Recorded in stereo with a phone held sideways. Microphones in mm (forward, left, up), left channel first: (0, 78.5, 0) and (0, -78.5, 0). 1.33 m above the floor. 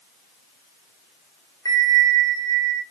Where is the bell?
25° left (ahead or behind), 0.6 m.